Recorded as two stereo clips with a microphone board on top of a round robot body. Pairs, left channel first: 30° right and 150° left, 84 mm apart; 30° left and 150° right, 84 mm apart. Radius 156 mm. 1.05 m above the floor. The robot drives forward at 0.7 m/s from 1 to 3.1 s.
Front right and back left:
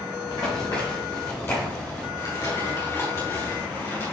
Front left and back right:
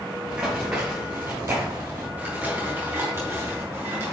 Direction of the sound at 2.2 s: 75° right.